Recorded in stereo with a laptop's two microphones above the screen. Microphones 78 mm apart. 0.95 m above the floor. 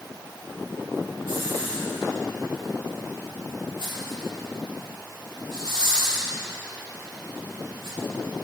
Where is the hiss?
75° right (ahead or behind), 2.5 m.